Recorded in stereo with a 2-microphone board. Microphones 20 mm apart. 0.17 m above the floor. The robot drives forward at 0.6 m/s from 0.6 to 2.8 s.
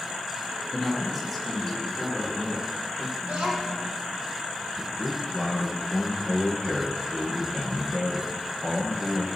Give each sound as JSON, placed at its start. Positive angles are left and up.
{"t": 0.7, "sound": "a man speaking", "side_deg": -5, "distance_m": 1.8}
{"t": 3.2, "sound": "a child speaking", "side_deg": -65, "distance_m": 4.0}
{"t": 4.8, "sound": "a man speaking", "side_deg": -50, "distance_m": 3.0}